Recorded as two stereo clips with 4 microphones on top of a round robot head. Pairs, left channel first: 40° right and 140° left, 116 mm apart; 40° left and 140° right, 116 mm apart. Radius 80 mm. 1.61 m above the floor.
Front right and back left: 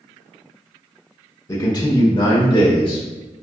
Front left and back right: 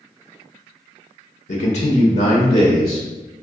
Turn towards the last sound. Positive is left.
turn(degrees=0)